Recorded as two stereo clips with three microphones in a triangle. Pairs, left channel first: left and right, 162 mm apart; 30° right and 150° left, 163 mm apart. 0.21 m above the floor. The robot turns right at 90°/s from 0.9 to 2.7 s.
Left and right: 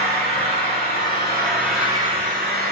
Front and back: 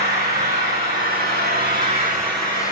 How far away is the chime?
I don't hear a chime.